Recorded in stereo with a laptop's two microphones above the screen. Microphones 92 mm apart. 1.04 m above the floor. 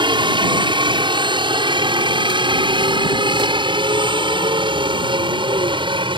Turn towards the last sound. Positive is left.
turn(degrees=-65)  # may be behind; listen again after turning